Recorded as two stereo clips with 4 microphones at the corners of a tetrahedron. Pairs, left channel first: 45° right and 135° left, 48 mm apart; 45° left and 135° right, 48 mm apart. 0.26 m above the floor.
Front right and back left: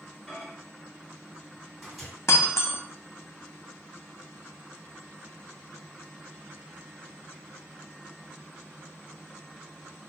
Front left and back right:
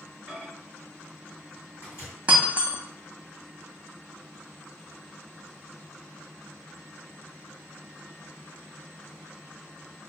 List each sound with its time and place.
0.3 s a microwave: 55° left, 1.8 m
2.3 s breaking glass: 70° right, 0.8 m